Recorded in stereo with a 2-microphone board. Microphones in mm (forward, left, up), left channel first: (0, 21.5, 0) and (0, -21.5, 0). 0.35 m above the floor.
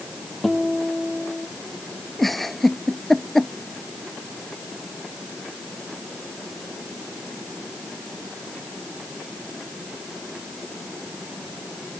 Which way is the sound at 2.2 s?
5° left (ahead or behind).